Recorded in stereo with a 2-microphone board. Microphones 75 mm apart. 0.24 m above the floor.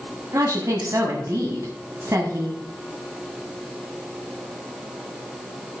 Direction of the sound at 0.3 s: 45° right (ahead or behind).